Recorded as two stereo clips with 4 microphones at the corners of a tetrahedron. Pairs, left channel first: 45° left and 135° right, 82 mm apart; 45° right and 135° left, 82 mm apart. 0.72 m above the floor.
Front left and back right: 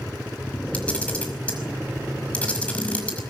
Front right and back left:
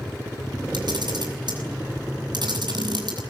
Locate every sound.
0.7 s a camera shutter: 120° left, 5.5 m